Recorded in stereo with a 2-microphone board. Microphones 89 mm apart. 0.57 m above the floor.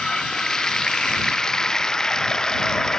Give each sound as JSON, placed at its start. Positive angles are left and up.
{"t": 0.0, "sound": "running water", "side_deg": 10}